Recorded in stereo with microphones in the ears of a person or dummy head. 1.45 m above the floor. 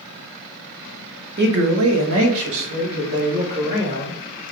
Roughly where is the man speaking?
Right.